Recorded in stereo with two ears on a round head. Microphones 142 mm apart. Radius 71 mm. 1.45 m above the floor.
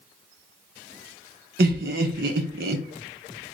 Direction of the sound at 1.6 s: 65° right (ahead or behind).